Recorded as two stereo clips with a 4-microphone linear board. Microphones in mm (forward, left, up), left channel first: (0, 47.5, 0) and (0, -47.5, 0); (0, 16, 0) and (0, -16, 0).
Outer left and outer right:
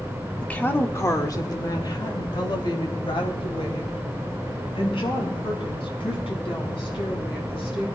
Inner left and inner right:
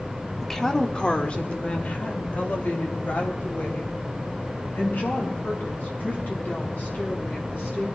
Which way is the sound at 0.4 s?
10° left (ahead or behind).